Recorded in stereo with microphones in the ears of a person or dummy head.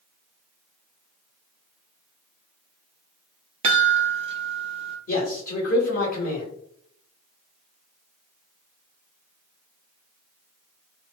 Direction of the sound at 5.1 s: 40° left (ahead or behind).